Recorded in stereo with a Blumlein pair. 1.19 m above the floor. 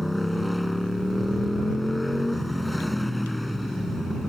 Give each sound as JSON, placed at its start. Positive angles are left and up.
{"t": 0.0, "sound": "a motorcycle", "azimuth_deg": 5}